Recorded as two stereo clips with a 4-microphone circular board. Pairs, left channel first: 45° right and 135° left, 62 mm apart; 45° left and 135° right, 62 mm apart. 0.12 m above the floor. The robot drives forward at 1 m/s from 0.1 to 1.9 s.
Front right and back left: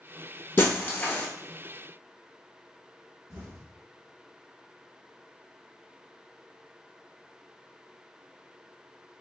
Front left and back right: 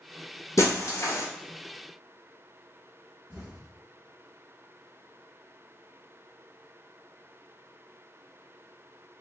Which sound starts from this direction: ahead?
Breaking glass, at 0.6 s.